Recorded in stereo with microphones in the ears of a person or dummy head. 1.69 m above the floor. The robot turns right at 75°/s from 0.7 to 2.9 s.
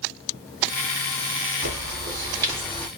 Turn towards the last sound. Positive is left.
turn(degrees=15)